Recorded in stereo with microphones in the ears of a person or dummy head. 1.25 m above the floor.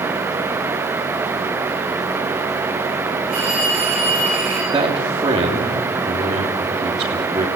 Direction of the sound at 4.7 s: 25° right (ahead or behind).